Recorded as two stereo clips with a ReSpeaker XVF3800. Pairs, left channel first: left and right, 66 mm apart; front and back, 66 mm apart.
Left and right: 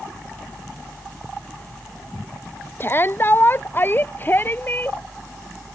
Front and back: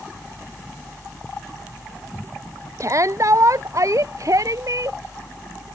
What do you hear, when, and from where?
2.8 s a shout: 145° left; by 5.0 s 150° left